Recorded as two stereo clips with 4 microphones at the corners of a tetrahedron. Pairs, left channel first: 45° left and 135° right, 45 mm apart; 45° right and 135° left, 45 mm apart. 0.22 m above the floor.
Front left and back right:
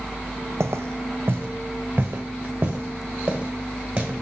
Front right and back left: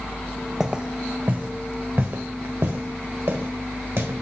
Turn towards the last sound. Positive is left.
turn(degrees=160)